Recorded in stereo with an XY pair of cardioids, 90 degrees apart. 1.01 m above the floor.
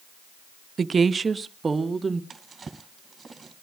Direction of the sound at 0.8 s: 50° right.